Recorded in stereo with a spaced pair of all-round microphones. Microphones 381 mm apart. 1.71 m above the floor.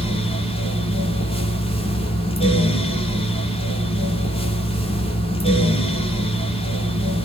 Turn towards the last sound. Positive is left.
turn(degrees=15)  # may be behind; listen again after turning